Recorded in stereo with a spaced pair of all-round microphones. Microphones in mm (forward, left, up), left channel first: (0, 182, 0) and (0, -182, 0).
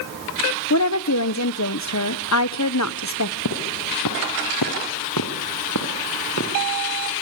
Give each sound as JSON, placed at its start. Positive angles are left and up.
{"t": 0.7, "sound": "a woman speaking", "side_deg": 50, "distance_m": 1.0}
{"t": 3.5, "sound": "footsteps", "side_deg": 55, "distance_m": 3.5}